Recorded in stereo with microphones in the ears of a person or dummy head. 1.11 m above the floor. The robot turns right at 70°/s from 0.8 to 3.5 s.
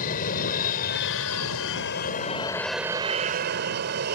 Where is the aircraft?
45° left; by 4.2 s 125° right.